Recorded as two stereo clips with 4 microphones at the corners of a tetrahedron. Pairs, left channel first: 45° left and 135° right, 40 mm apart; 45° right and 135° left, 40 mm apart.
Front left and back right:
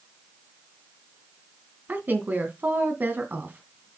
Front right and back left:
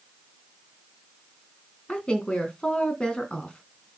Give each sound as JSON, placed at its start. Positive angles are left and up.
{"t": 1.9, "sound": "a woman speaking", "azimuth_deg": -110, "distance_m": 2.5}